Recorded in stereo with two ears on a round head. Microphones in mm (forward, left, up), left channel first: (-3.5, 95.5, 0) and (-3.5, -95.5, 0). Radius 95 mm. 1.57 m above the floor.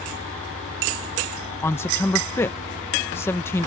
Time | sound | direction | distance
1.6 | a man speaking | 10° left (ahead or behind) | ?